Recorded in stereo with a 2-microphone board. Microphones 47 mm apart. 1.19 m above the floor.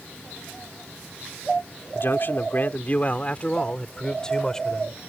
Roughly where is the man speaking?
Left.